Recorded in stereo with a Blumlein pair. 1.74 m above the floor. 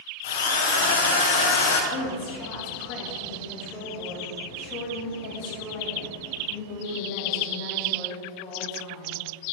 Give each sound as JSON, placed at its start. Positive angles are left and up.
{"t": 0.2, "sound": "a drill", "azimuth_deg": 55, "distance_m": 1.3}
{"t": 1.9, "sound": "a woman speaking", "azimuth_deg": 40, "distance_m": 2.5}